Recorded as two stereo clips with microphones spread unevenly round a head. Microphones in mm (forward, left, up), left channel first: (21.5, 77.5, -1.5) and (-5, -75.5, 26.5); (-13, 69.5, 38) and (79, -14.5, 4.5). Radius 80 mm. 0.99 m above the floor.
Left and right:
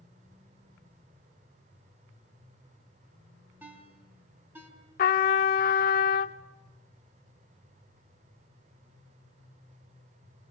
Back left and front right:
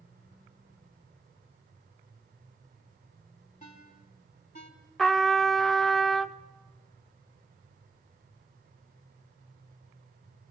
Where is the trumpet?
65° left, 0.7 m.